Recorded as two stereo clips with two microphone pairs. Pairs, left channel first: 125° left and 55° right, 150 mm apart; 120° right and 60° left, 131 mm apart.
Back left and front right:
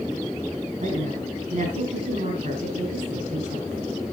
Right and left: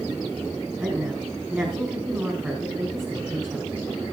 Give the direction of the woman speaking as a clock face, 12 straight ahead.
1 o'clock.